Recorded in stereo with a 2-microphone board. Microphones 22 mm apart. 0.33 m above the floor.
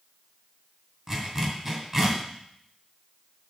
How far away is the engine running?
I don't hear an engine running.